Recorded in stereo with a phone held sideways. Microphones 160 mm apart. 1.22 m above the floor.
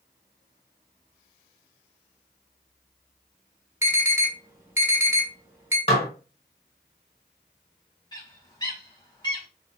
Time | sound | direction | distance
3.8 | an alarm | 15° right (ahead or behind) | 1.1 m
5.9 | dishes clattering | 40° left (ahead or behind) | 0.9 m
8.1 | a bird | 25° left (ahead or behind) | 1.4 m